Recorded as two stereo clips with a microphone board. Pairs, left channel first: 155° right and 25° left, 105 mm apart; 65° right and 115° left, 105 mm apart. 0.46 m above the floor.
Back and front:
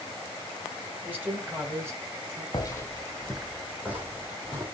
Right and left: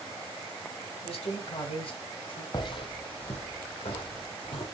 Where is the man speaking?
50° right, 2 m; by 2.4 s 30° right, 2.5 m.